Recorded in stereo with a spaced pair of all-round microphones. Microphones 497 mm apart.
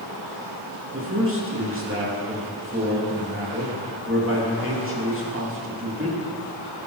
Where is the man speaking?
25° right (ahead or behind), 2.5 m.